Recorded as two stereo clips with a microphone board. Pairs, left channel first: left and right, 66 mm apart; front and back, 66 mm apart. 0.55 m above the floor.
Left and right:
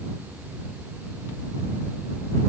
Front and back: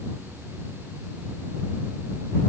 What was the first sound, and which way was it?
Only background noise.